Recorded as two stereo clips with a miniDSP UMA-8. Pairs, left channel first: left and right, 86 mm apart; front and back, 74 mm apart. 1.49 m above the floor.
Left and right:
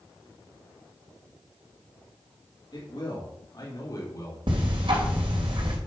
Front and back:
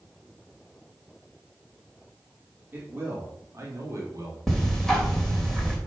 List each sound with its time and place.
2.7 s a man speaking: 120° left, 3 m; by 4.4 s 140° left, 3 m
4.5 s ticking: 85° right, 3 m